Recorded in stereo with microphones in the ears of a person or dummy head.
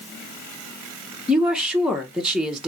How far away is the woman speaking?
About 0.7 m.